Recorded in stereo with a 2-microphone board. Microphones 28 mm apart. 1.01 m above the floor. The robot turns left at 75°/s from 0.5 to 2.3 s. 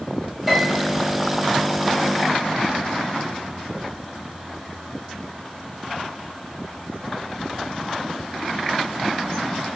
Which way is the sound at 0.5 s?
170° right.